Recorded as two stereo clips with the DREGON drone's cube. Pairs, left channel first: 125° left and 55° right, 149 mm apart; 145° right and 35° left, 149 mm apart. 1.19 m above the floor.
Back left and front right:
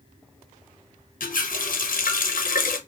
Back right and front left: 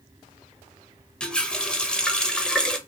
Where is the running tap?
130° left, 0.5 m.